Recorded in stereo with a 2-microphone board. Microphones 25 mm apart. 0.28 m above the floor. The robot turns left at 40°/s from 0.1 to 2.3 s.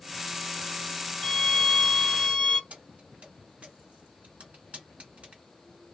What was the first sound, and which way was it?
A violin, 130° left.